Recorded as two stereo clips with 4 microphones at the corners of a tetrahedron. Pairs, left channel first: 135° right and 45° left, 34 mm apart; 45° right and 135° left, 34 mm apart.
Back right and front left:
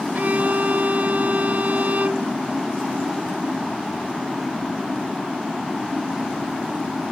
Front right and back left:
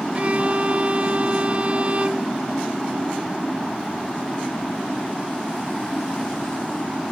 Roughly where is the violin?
Left.